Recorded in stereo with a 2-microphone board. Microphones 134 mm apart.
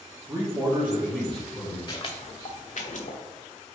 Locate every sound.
0.3 s a man speaking: 20° right (ahead or behind), 1.1 m; by 1.8 s 5° left (ahead or behind), 1.3 m
1.9 s footsteps: 35° left (ahead or behind), 0.6 m; by 3.2 s 70° left (ahead or behind), 1.1 m